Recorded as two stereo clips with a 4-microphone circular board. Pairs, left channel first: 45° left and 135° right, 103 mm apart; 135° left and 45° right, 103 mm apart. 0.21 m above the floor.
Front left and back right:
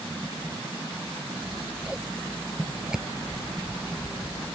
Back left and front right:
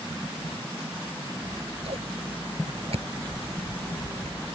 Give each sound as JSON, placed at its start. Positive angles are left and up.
{"t": 1.4, "sound": "scissors", "azimuth_deg": -55}